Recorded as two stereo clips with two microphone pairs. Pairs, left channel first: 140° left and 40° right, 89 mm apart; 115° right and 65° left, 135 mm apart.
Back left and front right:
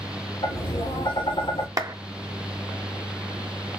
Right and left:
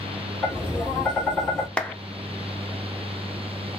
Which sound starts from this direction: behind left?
Tapping, at 0.4 s.